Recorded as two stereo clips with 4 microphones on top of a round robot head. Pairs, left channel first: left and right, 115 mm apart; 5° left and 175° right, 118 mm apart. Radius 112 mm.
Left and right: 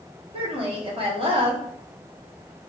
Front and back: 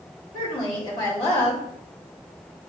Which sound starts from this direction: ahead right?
A woman speaking, at 0.3 s.